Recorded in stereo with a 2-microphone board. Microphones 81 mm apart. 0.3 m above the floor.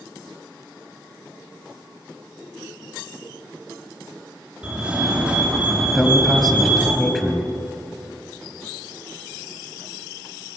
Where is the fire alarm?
15° right (ahead or behind), 5.5 m.